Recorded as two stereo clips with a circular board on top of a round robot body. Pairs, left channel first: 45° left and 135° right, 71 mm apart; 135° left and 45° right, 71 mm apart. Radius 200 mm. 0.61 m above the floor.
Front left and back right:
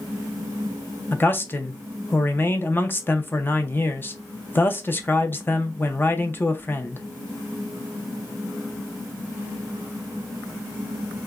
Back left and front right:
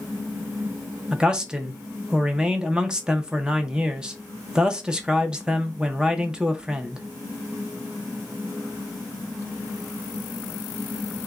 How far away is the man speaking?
About 0.8 m.